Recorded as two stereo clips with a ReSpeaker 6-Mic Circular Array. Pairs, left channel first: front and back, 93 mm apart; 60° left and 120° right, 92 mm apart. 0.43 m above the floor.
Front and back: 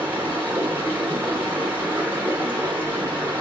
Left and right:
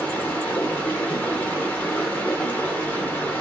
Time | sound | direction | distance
0.0 | running water | 120° left | 0.8 m